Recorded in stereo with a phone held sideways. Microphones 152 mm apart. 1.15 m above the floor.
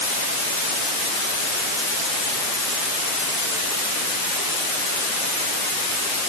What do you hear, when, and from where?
Only background noise.